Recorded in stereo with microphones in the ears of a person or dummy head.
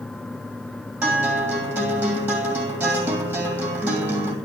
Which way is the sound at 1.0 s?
10° right (ahead or behind).